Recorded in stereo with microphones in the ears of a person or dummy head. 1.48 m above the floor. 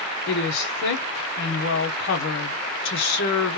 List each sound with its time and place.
0.3 s a woman speaking: 75° left (ahead or behind), 0.9 m